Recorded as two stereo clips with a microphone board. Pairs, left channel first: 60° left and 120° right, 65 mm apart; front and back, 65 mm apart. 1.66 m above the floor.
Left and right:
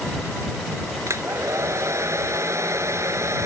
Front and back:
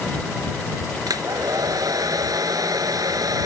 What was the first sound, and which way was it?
A hair dryer, 160° right.